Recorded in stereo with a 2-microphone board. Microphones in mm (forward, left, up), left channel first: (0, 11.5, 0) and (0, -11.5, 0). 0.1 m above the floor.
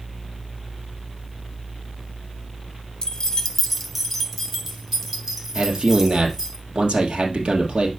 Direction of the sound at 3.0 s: 35° left (ahead or behind).